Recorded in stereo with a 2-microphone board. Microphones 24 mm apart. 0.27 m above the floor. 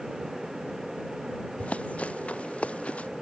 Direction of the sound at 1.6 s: 70° left (ahead or behind).